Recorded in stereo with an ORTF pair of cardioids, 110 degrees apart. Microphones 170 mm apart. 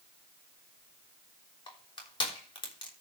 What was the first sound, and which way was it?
Crushing, 25° left.